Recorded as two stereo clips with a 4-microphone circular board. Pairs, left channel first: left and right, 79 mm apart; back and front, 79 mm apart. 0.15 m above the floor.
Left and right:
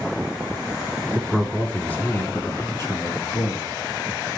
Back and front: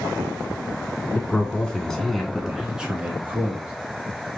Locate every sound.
1.1 s a man speaking: 170° left, 1.2 m; by 3.7 s 65° left, 1.9 m